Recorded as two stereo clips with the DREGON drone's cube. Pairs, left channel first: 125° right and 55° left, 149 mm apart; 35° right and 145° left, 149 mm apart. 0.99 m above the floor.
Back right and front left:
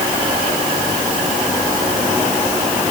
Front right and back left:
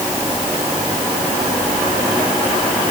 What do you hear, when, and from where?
Only background noise.